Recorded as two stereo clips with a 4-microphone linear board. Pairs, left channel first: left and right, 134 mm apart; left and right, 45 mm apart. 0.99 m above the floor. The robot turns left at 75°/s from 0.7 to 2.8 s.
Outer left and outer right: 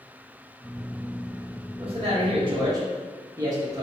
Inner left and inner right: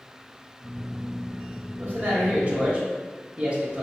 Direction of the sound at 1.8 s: 65° right.